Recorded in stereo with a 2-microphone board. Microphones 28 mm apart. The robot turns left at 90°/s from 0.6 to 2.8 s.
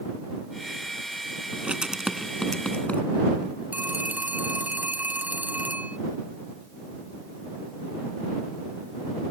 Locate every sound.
1.5 s writing: 60° right (ahead or behind); by 3.0 s 55° left (ahead or behind)
3.7 s a phone ringing: 75° right (ahead or behind)